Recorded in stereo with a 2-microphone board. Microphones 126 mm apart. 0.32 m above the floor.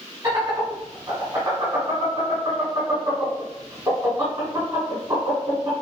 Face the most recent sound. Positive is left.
turn(degrees=-25)  # may be behind; listen again after turning